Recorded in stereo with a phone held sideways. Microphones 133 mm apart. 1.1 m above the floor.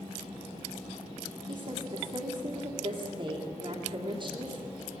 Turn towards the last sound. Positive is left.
turn(degrees=-50)  # may be behind; listen again after turning